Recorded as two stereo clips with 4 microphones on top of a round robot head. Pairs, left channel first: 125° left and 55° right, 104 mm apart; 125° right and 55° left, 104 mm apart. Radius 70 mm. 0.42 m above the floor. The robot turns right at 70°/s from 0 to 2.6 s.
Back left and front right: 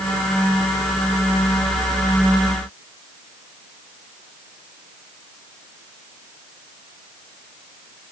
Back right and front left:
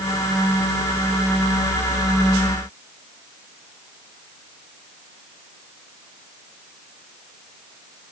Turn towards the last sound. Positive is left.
No sound to turn to.